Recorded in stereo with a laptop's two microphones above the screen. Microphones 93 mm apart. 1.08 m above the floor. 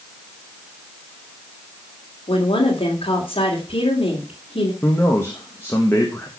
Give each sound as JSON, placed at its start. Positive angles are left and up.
{"t": 2.3, "sound": "a woman speaking", "side_deg": 80, "distance_m": 2.5}
{"t": 4.8, "sound": "a man speaking", "side_deg": 25, "distance_m": 1.2}